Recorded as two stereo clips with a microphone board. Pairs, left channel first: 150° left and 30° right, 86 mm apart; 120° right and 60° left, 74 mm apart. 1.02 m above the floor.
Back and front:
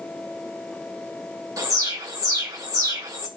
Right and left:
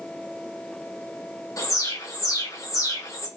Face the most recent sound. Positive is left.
turn(degrees=-80)